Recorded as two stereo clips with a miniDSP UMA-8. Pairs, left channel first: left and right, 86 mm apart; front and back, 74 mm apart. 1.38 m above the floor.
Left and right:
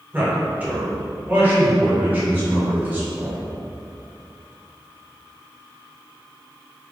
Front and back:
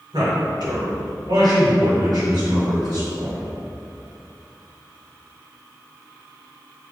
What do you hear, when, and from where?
0.1 s a man speaking: 160° right, 1.8 m